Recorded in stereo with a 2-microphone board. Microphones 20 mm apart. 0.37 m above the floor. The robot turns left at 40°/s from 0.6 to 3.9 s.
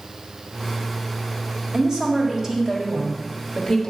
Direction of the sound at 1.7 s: 110° right.